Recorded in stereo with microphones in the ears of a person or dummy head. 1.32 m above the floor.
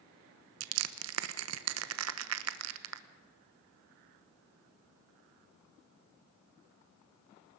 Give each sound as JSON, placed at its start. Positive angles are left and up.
{"t": 0.6, "sound": "crushing", "side_deg": -80, "distance_m": 1.0}